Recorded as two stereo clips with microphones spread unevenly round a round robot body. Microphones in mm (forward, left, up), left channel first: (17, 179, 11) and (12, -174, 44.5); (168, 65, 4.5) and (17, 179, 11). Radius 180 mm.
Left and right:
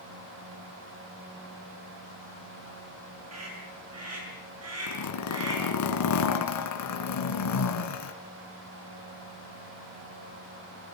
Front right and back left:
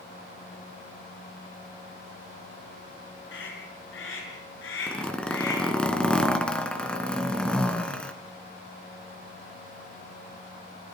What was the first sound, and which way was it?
A scream, 45° right.